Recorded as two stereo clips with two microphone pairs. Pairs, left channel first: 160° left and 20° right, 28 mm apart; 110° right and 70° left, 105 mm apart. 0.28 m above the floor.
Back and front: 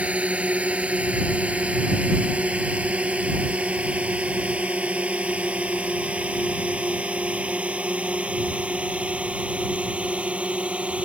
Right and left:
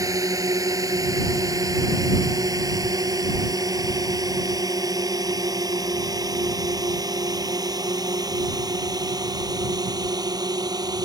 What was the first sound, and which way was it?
A drone, 15° left.